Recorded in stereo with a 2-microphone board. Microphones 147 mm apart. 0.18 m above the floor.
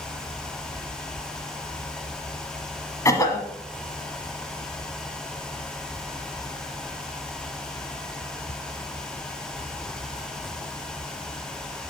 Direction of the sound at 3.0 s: 25° left (ahead or behind).